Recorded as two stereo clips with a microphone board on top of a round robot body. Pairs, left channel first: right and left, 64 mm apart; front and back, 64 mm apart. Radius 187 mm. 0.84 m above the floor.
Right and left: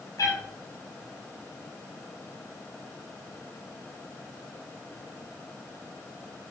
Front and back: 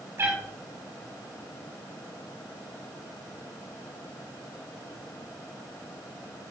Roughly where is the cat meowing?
Behind right.